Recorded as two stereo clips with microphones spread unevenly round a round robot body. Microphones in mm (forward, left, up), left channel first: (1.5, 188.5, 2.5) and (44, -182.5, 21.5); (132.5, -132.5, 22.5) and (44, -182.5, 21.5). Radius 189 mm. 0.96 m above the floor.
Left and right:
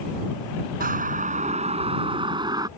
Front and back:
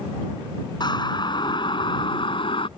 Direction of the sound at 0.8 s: 15° right.